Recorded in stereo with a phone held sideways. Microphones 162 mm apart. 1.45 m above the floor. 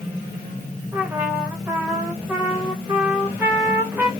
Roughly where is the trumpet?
Centre.